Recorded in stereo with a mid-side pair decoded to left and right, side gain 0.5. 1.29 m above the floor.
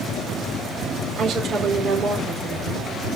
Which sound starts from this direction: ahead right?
A woman speaking, at 1.2 s.